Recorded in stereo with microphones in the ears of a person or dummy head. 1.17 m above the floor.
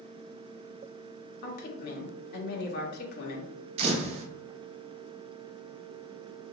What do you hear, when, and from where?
1.4 s a woman speaking: 50° left (ahead or behind), 1.5 m
3.8 s a camera shutter: 45° right (ahead or behind), 1.0 m